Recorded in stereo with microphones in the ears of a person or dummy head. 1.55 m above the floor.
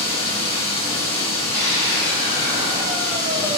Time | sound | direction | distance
0.0 | running water | 15° left (ahead or behind) | 1.4 m
1.5 | a scream | 20° right (ahead or behind) | 1.6 m